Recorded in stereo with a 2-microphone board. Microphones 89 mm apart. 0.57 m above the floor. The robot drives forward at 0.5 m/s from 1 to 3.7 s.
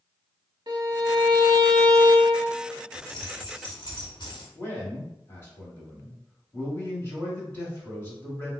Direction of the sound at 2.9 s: 70° left (ahead or behind).